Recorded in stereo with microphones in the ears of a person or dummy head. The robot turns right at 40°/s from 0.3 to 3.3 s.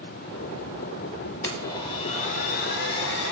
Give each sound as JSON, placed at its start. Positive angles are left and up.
{"t": 1.4, "sound": "a blender", "azimuth_deg": 20, "distance_m": 0.8}